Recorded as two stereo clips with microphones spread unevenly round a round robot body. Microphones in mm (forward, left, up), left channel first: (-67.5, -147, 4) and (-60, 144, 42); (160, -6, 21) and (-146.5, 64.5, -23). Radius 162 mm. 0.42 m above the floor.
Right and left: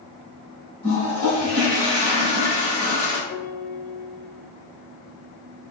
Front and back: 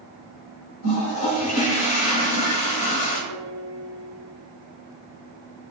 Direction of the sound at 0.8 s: 20° right.